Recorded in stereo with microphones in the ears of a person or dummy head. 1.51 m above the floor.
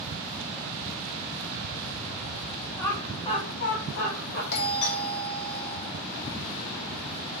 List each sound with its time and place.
2.8 s laughter: 10° left (ahead or behind), 1.6 m; by 4.4 s 55° left (ahead or behind), 1.3 m
4.5 s a doorbell: 60° left (ahead or behind), 0.9 m